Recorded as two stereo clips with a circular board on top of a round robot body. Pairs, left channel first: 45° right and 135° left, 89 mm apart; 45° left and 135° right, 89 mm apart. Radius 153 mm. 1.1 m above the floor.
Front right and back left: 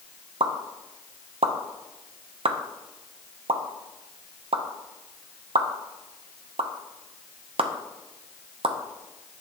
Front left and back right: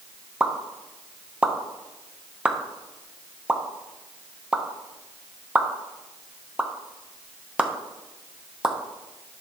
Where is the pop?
150° left, 0.7 m.